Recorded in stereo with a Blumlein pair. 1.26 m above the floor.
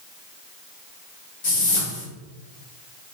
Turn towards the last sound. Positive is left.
turn(degrees=50)